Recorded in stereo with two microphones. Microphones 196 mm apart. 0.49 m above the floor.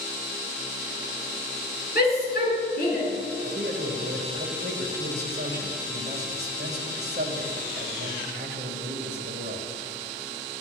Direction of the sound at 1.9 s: 50° left (ahead or behind).